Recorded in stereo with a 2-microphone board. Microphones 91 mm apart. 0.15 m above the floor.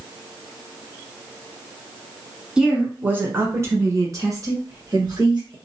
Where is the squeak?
I don't hear a squeak.